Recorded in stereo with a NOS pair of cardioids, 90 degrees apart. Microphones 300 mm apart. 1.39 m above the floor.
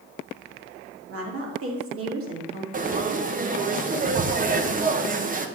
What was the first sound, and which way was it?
A woman speaking, 50° right.